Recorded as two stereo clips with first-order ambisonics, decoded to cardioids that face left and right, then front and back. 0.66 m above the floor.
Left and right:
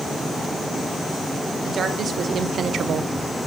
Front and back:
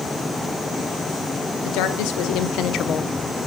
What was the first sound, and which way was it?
A woman speaking, 25° right.